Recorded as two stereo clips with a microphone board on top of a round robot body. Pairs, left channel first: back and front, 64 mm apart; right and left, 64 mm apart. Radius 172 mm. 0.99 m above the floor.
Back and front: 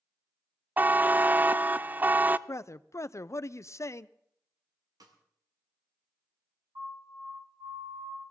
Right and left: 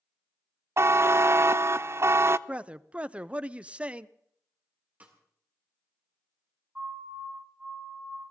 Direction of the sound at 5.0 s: 20° left.